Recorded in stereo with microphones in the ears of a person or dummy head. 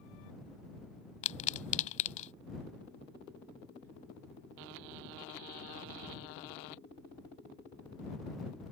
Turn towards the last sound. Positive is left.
turn(degrees=40)  # may be behind; listen again after turning